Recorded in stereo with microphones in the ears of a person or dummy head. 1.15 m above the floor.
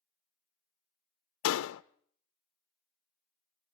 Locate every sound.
1.4 s a door slam: 75° left (ahead or behind), 0.6 m